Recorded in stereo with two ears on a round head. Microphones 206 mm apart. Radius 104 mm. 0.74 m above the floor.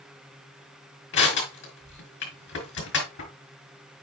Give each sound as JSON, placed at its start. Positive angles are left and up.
{"t": 1.1, "sound": "crushing", "side_deg": 60, "distance_m": 4.5}